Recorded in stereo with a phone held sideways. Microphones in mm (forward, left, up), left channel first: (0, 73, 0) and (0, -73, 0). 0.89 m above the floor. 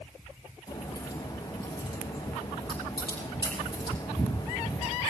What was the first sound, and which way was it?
A crack, 30° left (ahead or behind).